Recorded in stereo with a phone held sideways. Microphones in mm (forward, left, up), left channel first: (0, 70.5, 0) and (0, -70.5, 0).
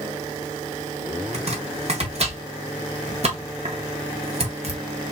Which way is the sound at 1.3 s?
50° right (ahead or behind).